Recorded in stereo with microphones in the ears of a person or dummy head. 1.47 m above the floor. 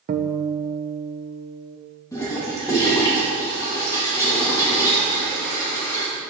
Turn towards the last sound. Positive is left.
turn(degrees=15)  # may be behind; listen again after turning